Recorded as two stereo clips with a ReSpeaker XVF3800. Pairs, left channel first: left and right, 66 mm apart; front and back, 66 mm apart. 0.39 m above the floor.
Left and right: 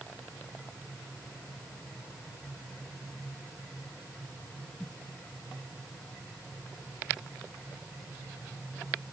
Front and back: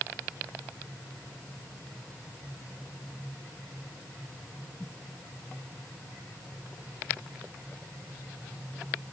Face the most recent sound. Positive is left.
No sound to turn to.